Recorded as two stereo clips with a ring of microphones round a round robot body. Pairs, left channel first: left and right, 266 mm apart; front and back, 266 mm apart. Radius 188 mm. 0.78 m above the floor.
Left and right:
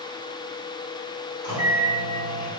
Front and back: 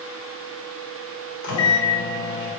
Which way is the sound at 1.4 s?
15° left.